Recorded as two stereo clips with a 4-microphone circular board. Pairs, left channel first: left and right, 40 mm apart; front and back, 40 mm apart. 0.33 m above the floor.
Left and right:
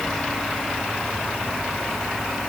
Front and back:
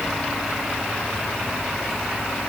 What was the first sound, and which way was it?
Only background noise.